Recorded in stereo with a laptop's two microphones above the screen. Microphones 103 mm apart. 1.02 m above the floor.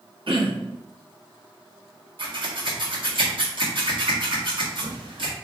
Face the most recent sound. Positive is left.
turn(degrees=-60)  # may be behind; listen again after turning